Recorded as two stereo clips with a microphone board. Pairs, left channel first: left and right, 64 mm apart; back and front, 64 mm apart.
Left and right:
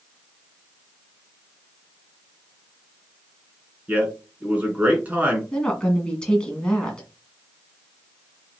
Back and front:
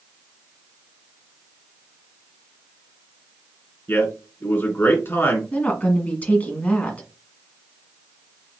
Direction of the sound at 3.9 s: 145° right.